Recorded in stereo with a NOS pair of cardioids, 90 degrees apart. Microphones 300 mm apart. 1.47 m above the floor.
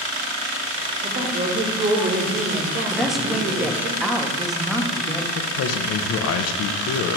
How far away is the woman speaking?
About 1.3 m.